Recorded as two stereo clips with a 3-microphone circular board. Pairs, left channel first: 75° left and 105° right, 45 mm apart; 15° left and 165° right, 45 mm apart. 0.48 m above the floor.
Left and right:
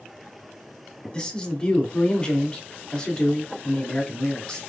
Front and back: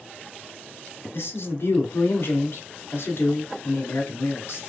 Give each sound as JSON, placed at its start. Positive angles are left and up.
{"t": 1.1, "sound": "a man speaking", "azimuth_deg": 10, "distance_m": 1.3}